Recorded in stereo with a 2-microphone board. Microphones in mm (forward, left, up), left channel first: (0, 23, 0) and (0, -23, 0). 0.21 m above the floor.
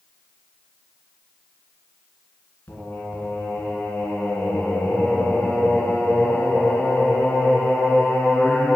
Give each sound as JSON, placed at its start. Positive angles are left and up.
{"t": 2.7, "sound": "singing", "side_deg": 50, "distance_m": 1.8}